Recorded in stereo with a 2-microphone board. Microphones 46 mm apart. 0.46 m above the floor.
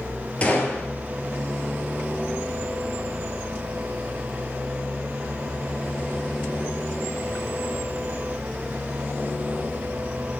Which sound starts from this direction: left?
A gunshot, at 0.4 s.